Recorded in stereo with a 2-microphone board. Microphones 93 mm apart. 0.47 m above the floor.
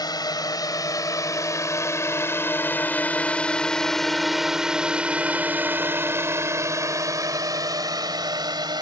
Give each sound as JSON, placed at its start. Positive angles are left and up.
{"t": 0.0, "sound": "a drone", "side_deg": 50}